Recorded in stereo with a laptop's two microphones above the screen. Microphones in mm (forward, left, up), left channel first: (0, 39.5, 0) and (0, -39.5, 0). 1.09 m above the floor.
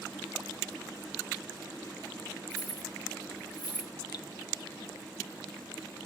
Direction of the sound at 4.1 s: 55° left (ahead or behind).